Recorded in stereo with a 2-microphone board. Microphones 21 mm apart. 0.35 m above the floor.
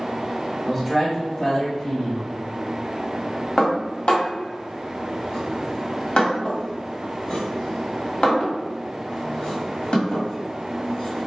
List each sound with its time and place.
0.7 s a man speaking: 10° left (ahead or behind), 1.2 m; by 2.3 s 60° left (ahead or behind), 1.7 m
3.6 s dishes clattering: 60° left (ahead or behind), 1.4 m